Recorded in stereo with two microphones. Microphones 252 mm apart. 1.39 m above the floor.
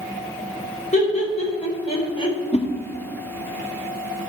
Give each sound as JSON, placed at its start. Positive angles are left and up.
{"t": 0.9, "sound": "laughter", "side_deg": 30, "distance_m": 4.5}
{"t": 2.5, "sound": "a whoosh", "side_deg": 25, "distance_m": 1.7}